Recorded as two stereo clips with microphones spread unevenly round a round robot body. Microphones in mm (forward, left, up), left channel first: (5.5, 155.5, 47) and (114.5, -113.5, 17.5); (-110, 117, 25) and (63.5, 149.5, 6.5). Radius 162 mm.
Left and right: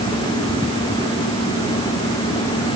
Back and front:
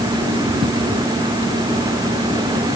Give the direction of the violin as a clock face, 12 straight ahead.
No violin in this recording.